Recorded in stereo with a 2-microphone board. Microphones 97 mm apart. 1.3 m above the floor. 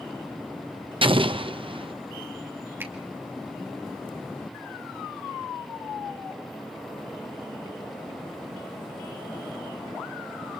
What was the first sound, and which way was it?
An explosion, 65° right (ahead or behind).